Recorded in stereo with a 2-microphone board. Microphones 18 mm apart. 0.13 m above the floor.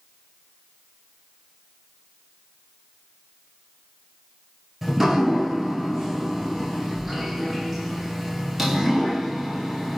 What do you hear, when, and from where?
4.8 s dripping: 10° right (ahead or behind), 1.0 m